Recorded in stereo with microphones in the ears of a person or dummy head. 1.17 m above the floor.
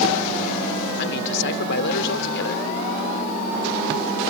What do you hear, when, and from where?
1.0 s a man speaking: 65° left (ahead or behind)